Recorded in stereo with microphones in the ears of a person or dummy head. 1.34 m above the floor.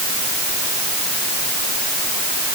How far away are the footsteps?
I don't hear footsteps.